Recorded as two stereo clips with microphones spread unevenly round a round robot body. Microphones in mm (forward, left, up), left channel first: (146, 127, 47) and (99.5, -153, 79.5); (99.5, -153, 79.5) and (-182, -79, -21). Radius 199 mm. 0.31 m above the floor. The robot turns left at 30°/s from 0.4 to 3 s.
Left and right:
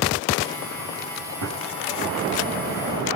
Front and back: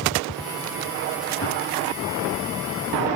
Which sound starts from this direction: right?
A gunshot, at 1.4 s.